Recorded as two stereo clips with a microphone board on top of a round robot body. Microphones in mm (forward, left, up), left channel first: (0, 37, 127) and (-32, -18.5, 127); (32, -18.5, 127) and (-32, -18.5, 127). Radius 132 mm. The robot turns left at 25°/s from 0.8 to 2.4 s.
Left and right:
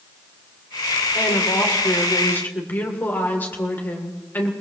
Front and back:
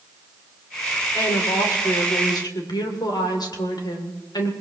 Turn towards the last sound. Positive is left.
turn(degrees=0)